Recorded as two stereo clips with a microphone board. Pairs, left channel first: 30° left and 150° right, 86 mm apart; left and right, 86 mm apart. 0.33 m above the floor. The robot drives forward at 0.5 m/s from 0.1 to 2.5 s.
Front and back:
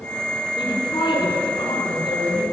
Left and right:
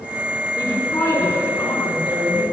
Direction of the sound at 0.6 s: 50° left.